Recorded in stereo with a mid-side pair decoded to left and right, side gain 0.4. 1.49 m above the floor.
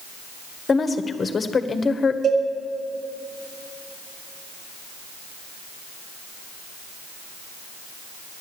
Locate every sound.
0.7 s a woman speaking: 40° left, 1.3 m
2.2 s a cowbell: 70° right, 4 m